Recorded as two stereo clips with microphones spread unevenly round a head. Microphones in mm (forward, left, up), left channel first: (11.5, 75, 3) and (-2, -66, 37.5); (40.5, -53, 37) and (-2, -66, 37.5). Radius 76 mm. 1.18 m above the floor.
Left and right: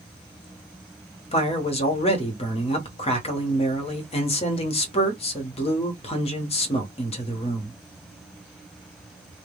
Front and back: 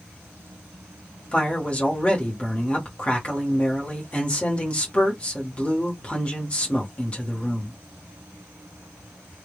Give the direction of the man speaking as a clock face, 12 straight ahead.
9 o'clock.